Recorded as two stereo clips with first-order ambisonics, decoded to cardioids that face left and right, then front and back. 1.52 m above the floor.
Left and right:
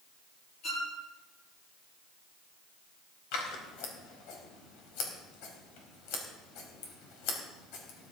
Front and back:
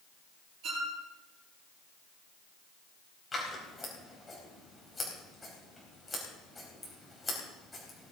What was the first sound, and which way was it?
A violin, 140° left.